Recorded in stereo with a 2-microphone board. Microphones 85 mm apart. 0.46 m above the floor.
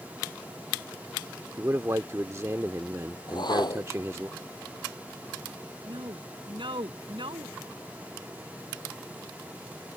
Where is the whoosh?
55° left (ahead or behind).